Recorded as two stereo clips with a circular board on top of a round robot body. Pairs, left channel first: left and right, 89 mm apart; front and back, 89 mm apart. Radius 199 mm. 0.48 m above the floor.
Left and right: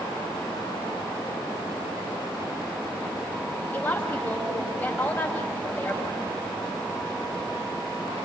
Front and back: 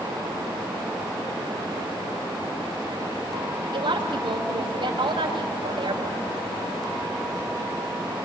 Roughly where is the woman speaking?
Behind left.